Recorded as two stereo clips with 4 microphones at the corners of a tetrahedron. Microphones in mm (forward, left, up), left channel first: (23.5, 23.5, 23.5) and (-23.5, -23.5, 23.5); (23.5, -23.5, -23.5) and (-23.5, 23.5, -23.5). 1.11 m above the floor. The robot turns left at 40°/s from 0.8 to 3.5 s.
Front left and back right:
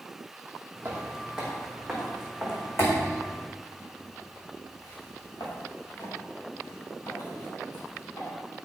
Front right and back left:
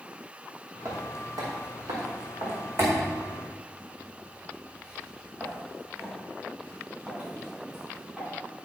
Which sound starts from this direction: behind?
Footsteps, at 0.8 s.